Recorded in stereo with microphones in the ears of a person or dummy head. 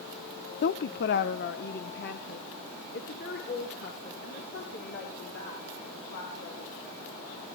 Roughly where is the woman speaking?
Left.